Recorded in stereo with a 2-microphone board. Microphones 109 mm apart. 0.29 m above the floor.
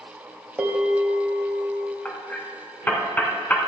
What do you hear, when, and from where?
0.6 s a bell: 15° right (ahead or behind), 1.6 m
2.0 s hammering: 15° left (ahead or behind), 1.4 m